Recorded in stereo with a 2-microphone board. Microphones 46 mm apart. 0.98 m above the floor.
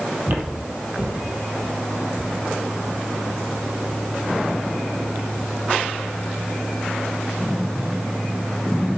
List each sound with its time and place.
0.3 s footsteps: 45° right (ahead or behind), 1.7 m; by 4.0 s 40° right (ahead or behind), 5.5 m